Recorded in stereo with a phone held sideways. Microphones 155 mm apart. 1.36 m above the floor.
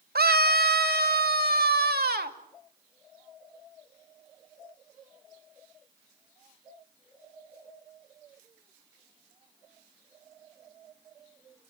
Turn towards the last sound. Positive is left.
turn(degrees=-85)